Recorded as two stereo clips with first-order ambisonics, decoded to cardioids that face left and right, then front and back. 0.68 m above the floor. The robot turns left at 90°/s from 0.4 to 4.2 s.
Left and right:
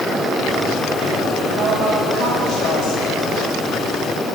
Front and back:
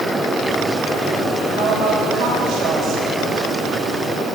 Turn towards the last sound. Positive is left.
turn(degrees=-15)